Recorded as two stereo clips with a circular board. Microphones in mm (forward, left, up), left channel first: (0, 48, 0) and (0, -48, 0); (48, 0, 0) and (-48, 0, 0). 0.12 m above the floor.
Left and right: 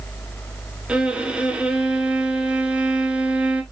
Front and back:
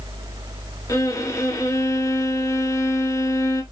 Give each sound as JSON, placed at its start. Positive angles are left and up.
{"t": 0.9, "sound": "a violin", "azimuth_deg": -20, "distance_m": 1.1}